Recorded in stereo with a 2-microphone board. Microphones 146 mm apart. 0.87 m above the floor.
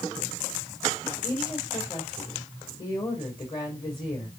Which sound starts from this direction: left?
A woman speaking, at 1.2 s.